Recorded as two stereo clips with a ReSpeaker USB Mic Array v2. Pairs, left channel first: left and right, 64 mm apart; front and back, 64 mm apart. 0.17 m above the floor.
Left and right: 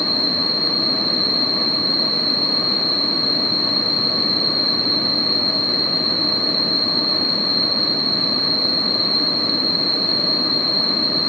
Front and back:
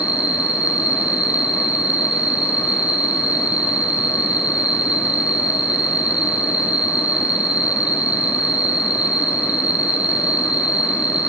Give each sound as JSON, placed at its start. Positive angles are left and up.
{"t": 0.0, "sound": "an insect", "azimuth_deg": 180, "distance_m": 1.6}